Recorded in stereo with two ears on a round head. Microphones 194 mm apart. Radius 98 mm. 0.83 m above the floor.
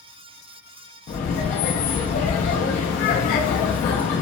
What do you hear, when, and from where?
1.1 s laughter: 40° left (ahead or behind), 0.6 m